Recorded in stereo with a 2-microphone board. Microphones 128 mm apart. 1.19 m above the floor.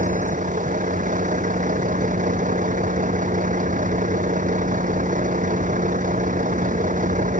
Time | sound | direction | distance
0.0 | a vehicle | 90° right | ?